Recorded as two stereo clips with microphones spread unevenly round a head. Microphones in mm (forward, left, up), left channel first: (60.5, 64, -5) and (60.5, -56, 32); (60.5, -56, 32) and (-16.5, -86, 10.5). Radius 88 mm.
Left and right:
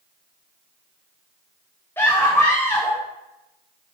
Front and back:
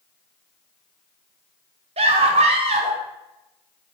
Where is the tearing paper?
I don't hear tearing paper.